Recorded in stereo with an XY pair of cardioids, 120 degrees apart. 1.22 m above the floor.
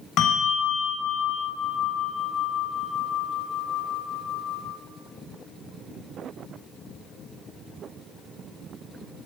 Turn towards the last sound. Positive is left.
turn(degrees=70)